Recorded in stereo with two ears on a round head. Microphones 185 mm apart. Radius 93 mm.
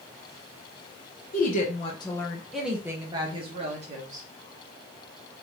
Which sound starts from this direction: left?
A woman speaking, at 1.3 s.